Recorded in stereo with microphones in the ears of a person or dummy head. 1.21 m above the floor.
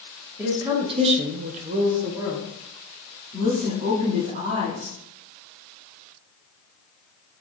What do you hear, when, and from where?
0.4 s a woman speaking: 15° right (ahead or behind), 1.1 m
3.3 s a woman speaking: 35° right (ahead or behind), 2.0 m